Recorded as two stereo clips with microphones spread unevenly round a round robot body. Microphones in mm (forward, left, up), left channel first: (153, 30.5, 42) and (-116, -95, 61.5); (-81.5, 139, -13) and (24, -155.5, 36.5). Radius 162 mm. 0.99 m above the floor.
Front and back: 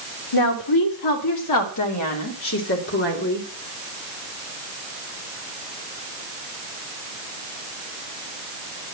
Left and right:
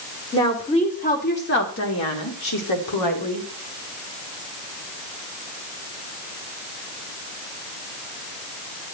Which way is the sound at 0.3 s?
30° left.